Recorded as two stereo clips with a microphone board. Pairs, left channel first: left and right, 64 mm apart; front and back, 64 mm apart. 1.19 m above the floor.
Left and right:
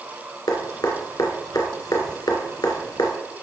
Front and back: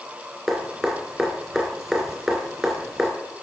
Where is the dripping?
100° left, 2.0 m.